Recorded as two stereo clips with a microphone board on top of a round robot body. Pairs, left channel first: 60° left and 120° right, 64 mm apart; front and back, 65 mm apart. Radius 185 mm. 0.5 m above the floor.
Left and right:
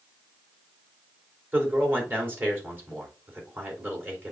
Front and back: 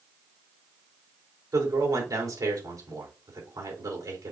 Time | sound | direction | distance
1.5 | a man speaking | 175° right | 3.5 m